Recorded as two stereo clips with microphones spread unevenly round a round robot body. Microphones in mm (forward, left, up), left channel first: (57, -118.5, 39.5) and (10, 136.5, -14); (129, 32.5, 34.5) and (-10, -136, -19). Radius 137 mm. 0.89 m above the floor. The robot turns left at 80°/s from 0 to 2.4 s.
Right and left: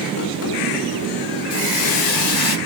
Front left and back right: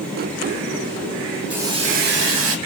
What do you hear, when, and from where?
1.5 s a hiss: 45° right, 3.5 m; by 2.6 s 120° right, 3.5 m